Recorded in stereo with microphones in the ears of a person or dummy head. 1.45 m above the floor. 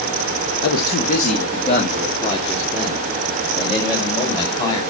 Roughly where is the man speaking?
Left.